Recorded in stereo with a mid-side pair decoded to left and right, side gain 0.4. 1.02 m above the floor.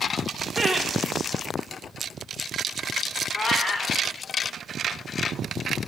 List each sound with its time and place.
0.6 s laughter: 15° right, 2 m
3.4 s a cat meowing: 50° left, 1.9 m